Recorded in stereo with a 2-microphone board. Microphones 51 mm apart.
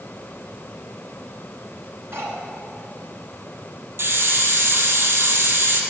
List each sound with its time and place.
2.1 s cutlery clinking: 55° right (ahead or behind), 2 m
4.0 s a hiss: 50° right (ahead or behind), 1.5 m